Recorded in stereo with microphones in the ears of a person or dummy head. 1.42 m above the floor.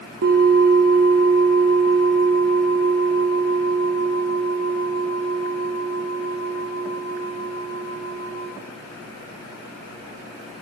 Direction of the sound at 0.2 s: 55° right (ahead or behind).